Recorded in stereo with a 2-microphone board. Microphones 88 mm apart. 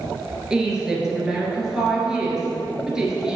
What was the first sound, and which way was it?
A woman speaking, 5° right (ahead or behind).